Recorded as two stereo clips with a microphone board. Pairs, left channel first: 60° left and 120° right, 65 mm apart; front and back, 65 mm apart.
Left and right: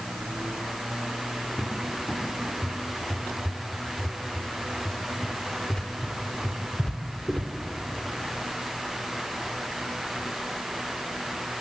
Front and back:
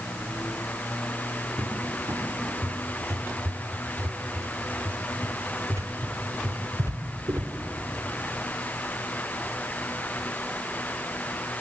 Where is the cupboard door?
140° left, 2 m.